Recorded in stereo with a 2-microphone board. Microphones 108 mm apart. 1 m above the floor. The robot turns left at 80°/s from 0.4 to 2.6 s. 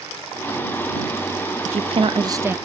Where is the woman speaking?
90° right; by 2.5 s 165° right.